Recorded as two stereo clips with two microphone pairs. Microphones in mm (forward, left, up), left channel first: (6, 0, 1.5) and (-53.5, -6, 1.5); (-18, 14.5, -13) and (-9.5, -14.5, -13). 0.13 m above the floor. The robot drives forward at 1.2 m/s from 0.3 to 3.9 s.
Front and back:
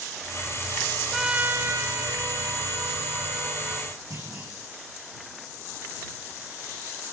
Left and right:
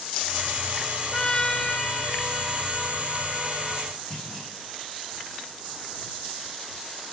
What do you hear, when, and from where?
1.1 s a trumpet: 105° left, 0.6 m; by 3.9 s 175° left, 3.5 m
4.1 s a clunk: 175° left, 7.5 m